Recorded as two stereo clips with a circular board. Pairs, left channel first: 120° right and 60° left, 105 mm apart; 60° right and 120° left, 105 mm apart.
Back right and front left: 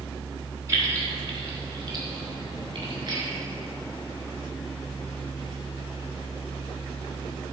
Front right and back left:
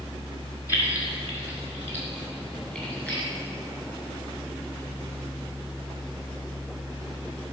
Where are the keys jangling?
Straight ahead, 3 m; by 3.2 s 15° left, 4.5 m.